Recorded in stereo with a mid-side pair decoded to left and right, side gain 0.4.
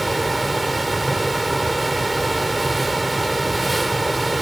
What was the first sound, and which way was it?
A fan, 10° right.